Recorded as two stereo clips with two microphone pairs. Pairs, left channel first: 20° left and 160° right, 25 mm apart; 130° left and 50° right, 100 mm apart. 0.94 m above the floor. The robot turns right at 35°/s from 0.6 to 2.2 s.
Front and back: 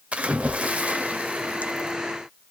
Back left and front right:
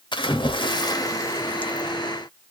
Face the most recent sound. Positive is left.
turn(degrees=-140)